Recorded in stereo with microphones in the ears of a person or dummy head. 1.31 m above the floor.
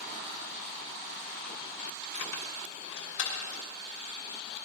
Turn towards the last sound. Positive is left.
turn(degrees=80)